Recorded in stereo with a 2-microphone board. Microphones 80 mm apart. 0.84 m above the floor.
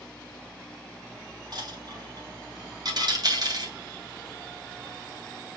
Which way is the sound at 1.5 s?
55° right (ahead or behind).